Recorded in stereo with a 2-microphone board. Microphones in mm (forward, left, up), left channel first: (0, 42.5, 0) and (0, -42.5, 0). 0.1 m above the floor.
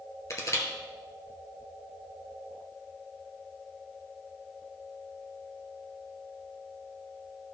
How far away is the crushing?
About 2.0 m.